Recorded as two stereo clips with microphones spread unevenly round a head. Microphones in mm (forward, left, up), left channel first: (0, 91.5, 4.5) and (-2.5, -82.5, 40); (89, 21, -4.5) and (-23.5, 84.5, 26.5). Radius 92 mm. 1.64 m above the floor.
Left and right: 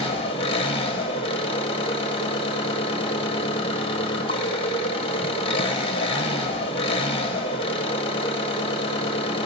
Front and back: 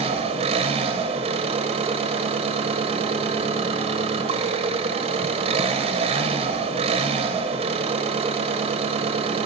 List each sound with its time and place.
0.0 s an engine running: 155° left, 0.9 m